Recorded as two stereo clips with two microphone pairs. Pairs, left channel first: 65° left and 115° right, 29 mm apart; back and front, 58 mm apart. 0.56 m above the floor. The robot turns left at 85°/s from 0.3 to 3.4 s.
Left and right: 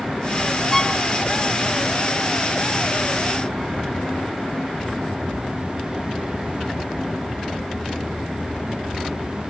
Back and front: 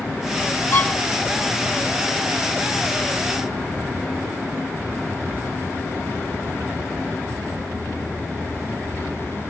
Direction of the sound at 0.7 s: 125° left.